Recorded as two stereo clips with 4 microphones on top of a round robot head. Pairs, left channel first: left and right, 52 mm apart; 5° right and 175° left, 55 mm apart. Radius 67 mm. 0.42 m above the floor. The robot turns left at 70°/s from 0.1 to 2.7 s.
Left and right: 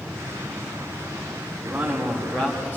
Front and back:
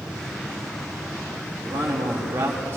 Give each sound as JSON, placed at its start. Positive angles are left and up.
{"t": 1.6, "sound": "a man speaking", "azimuth_deg": -150, "distance_m": 4.0}